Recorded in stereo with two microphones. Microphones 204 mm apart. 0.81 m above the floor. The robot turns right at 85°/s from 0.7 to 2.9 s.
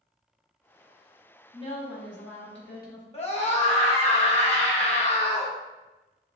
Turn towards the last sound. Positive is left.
turn(degrees=30)  # may be behind; listen again after turning